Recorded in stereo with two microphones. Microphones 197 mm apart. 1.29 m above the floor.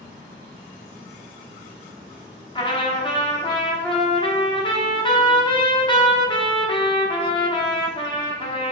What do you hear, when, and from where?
2.5 s a trumpet: 25° left (ahead or behind), 1.2 m